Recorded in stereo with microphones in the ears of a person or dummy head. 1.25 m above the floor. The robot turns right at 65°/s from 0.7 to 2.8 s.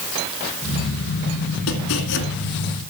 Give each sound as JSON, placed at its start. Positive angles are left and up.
{"t": 1.7, "sound": "chopping", "azimuth_deg": 85, "distance_m": 2.5}